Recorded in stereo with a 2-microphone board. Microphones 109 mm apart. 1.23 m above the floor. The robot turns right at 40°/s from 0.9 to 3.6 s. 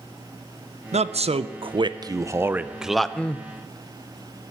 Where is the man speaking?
80° right, 0.5 m; by 3.5 s 20° left, 0.5 m.